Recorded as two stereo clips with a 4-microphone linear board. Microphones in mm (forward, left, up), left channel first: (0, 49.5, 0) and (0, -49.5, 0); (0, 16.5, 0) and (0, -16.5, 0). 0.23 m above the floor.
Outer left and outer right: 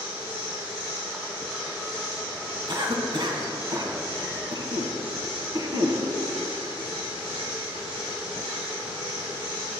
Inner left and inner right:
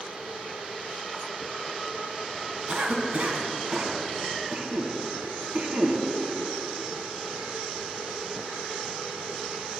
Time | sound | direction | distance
2.7 | a cough | 50° right (ahead or behind) | 2 m